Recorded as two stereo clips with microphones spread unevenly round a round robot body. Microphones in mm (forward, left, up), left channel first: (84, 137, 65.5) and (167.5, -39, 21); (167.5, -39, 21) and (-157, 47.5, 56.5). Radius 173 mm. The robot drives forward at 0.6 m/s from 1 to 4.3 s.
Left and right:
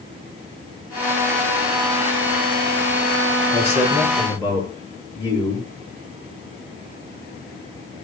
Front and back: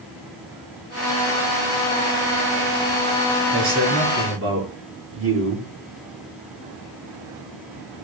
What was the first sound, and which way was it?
A man speaking, 140° right.